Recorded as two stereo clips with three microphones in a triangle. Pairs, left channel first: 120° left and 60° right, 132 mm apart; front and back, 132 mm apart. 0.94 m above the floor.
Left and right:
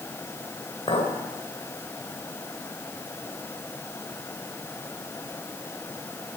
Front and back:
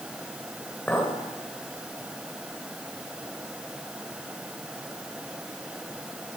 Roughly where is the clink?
Left.